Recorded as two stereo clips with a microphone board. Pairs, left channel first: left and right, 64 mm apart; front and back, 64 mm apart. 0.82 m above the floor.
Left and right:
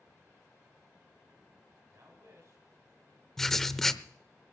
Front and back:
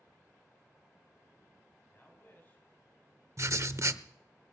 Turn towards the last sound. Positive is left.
turn(degrees=170)